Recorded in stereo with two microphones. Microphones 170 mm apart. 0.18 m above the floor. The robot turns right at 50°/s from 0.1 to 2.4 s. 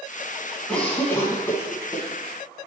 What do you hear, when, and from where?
0.7 s a cough: 5° left (ahead or behind), 1.0 m; by 2.0 s 20° left (ahead or behind), 1.0 m